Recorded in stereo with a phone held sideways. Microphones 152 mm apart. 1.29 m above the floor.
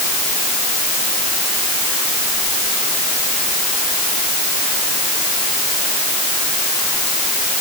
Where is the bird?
No bird in this recording.